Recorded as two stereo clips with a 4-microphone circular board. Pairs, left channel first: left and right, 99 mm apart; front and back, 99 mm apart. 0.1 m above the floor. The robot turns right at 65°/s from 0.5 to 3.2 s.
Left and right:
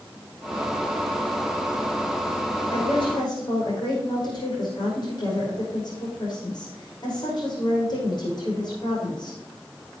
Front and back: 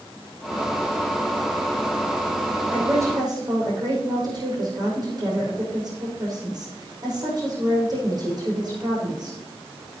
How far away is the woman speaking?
About 6 m.